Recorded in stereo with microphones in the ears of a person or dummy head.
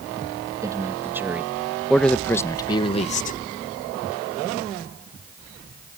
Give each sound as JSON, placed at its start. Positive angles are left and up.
{"t": 0.6, "sound": "a man speaking", "side_deg": -20}